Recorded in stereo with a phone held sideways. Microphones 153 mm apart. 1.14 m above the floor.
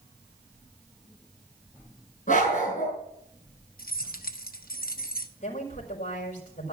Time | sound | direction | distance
2.3 | a dog barking | 55° left (ahead or behind) | 5.5 m
3.8 | keys jangling | 75° left (ahead or behind) | 1.0 m
5.4 | a woman speaking | 60° left (ahead or behind) | 5.5 m